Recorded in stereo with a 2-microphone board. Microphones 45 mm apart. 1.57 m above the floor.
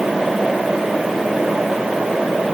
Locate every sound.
Only background noise.